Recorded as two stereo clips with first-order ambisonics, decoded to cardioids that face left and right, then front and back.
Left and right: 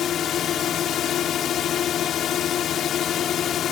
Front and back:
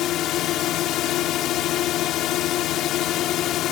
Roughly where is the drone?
Ahead left.